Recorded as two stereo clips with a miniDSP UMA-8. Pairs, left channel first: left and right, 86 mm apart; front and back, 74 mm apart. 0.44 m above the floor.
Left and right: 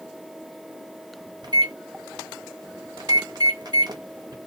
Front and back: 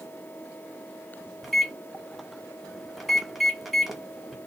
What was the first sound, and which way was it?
A microwave, 90° right.